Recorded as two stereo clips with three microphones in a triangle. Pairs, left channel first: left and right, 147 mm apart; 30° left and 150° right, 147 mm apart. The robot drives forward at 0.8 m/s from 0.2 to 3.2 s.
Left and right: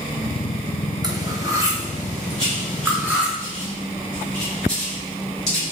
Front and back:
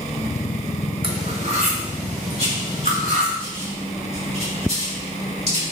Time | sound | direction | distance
1.0 | cutlery clinking | 135° right | 1.0 m
2.4 | writing | 175° left | 2.5 m